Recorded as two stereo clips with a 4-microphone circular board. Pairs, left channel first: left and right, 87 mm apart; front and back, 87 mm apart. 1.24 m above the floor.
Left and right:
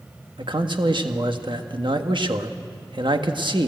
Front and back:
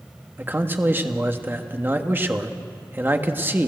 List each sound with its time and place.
0.4 s a man speaking: 115° right, 1.5 m